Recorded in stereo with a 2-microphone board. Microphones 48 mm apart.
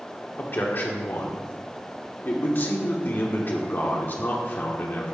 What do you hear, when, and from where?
0.4 s a man speaking: 45° left (ahead or behind), 0.9 m